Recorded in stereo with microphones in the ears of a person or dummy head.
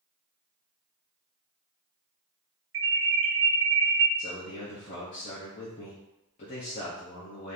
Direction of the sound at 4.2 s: 35° left (ahead or behind).